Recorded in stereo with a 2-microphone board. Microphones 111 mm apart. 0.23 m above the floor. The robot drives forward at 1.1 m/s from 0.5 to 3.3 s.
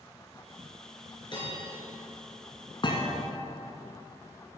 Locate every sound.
1.3 s a bell: 45° left (ahead or behind), 3 m; by 1.8 s 40° left (ahead or behind), 3.5 m
2.8 s a thud: 45° left (ahead or behind), 1.3 m; by 3.2 s 35° left (ahead or behind), 1.6 m